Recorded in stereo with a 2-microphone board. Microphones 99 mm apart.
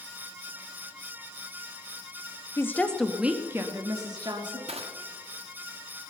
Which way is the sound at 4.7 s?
75° right (ahead or behind).